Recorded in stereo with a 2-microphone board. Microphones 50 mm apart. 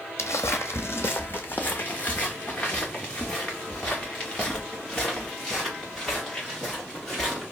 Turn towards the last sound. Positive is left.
turn(degrees=5)  # may be behind; listen again after turning